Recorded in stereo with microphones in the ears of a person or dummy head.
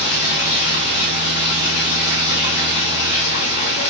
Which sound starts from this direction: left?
Running water, at 0.0 s.